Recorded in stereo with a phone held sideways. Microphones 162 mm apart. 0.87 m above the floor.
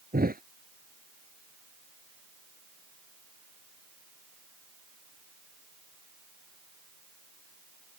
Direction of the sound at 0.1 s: 70° right (ahead or behind).